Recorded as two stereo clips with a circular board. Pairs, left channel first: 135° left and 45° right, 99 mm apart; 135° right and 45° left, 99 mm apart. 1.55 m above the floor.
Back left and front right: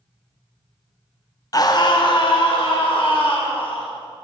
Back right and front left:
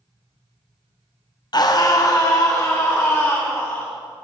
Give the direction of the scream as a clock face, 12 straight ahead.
6 o'clock.